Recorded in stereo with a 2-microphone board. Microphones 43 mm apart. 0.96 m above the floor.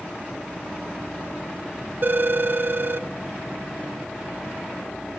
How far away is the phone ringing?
About 0.7 m.